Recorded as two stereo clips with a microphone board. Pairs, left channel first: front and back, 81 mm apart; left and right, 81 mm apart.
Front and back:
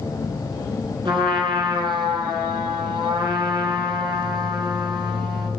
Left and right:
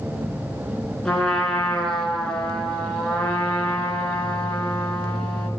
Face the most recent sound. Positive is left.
turn(degrees=175)